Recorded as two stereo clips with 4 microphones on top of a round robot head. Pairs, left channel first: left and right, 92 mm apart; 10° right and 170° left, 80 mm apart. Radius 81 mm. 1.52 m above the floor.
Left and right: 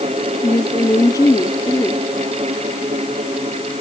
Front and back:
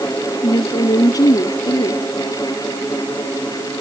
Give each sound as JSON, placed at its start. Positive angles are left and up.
{"t": 0.4, "sound": "a woman speaking", "azimuth_deg": 30}